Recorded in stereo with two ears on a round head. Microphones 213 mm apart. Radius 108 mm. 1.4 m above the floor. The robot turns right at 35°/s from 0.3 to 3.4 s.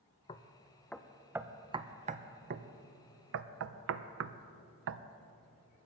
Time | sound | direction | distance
0.3 | knocking | 20° left (ahead or behind) | 0.5 m